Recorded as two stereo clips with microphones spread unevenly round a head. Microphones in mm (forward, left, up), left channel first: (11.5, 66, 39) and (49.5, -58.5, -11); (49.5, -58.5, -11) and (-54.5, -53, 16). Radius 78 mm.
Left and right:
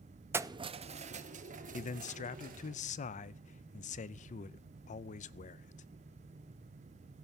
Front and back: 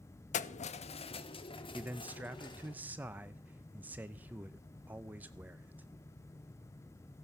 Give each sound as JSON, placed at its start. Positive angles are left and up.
{"t": 0.3, "sound": "keys jangling", "azimuth_deg": 0, "distance_m": 0.5}
{"t": 1.7, "sound": "a man speaking", "azimuth_deg": 85, "distance_m": 0.5}